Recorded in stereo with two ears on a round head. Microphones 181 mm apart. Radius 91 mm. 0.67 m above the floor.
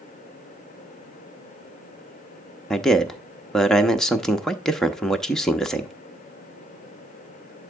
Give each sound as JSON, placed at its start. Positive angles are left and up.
{"t": 2.7, "sound": "a man speaking", "side_deg": 0, "distance_m": 0.8}